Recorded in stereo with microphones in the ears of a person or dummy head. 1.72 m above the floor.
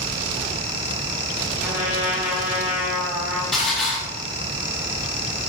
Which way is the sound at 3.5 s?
Centre (ahead or behind).